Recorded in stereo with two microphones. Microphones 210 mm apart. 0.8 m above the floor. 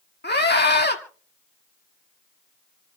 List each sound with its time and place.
0.2 s a scream: 50° left (ahead or behind), 1.8 m